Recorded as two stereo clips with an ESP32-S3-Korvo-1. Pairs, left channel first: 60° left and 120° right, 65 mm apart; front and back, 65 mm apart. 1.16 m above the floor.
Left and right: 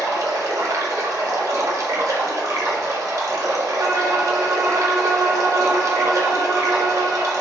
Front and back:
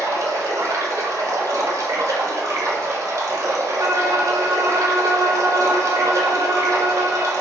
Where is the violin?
150° right, 1.0 m.